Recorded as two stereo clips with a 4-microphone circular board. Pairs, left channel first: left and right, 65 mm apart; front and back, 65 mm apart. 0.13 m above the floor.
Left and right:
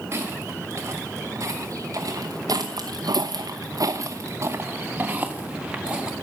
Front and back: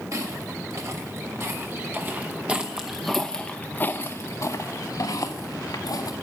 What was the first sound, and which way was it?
Footsteps, 140° right.